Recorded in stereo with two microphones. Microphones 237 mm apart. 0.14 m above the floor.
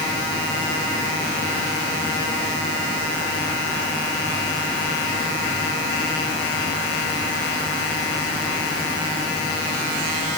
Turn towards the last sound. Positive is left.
No sound to turn to.